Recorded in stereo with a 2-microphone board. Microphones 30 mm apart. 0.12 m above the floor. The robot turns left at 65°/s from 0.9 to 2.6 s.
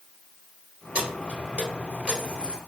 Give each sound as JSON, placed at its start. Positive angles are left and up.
{"t": 0.9, "sound": "keys jangling", "side_deg": -40, "distance_m": 1.6}